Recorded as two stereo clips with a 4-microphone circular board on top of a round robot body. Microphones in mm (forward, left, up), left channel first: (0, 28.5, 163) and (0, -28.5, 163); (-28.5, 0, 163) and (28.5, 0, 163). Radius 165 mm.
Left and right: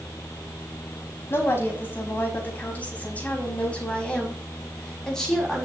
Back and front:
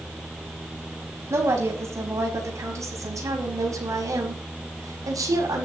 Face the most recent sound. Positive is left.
turn(degrees=5)